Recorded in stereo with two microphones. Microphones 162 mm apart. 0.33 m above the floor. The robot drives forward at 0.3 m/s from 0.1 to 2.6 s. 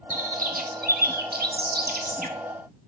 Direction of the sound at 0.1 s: 50° right (ahead or behind).